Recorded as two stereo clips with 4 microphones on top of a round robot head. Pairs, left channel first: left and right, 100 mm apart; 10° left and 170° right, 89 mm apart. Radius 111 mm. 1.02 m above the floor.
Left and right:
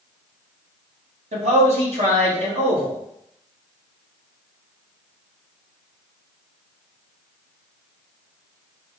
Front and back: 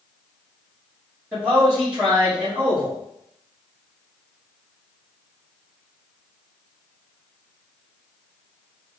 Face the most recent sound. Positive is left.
turn(degrees=-90)